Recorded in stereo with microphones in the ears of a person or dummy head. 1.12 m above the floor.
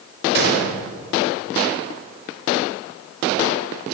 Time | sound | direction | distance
0.3 | a gunshot | 55° right (ahead or behind) | 6 m